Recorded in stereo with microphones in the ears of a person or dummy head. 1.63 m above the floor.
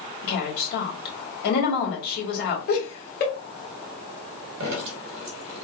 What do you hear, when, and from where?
0.2 s a woman speaking: 55° left (ahead or behind), 1.8 m
2.7 s laughter: 50° left (ahead or behind), 1.4 m
4.6 s dripping: 65° right (ahead or behind), 1.1 m